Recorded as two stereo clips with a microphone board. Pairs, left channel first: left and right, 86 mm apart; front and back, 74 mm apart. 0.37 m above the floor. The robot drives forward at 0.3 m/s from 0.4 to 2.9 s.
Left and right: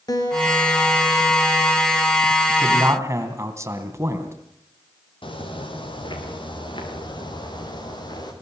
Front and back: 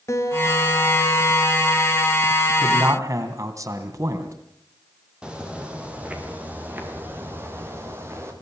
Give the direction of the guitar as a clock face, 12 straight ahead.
10 o'clock.